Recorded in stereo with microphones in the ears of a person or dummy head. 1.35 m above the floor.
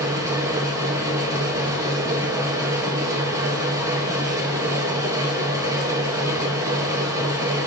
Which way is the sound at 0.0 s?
15° right (ahead or behind).